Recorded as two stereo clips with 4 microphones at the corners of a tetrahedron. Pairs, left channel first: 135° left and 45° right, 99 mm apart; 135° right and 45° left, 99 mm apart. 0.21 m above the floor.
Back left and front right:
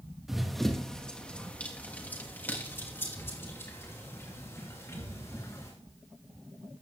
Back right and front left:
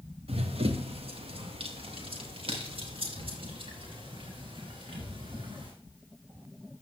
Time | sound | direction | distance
0.3 | running footsteps | 40° left | 1.7 m